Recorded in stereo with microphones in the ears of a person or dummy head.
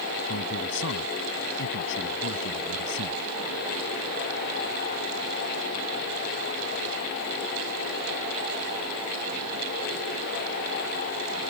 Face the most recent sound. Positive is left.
turn(degrees=70)  # may be behind; listen again after turning